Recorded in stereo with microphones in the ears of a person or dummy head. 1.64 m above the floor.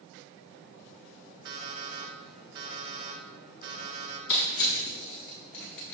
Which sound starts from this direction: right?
An alarm clock, at 1.4 s.